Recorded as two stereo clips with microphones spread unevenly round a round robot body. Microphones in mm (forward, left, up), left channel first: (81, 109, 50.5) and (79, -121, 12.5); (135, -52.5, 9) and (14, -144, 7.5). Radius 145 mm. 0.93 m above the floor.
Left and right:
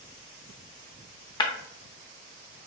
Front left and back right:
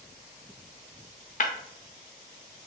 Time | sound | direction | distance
1.4 | breaking glass | 30° left | 0.7 m